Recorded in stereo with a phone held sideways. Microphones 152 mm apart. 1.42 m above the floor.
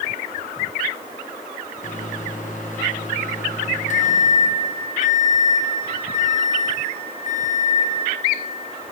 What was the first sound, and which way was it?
A microwave, 50° left (ahead or behind).